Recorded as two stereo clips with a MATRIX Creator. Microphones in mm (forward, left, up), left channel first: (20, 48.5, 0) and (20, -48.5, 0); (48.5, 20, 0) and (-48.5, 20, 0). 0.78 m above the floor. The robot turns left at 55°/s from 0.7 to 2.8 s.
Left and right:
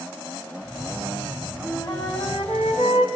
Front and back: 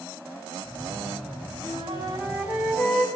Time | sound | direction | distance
1.6 | a flute | 150° left | 4 m